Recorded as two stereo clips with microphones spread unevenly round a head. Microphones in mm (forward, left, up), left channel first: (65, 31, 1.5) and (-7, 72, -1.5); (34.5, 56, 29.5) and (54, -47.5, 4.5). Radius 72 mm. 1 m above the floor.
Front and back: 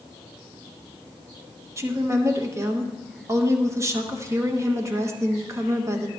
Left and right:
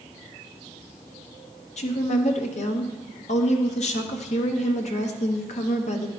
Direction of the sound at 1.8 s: 105° left.